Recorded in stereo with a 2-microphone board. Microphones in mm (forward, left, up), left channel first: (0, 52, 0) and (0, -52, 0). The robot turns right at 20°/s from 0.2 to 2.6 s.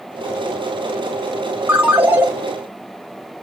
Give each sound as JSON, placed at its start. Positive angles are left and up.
{"t": 1.7, "sound": "a ringtone", "side_deg": -15, "distance_m": 0.7}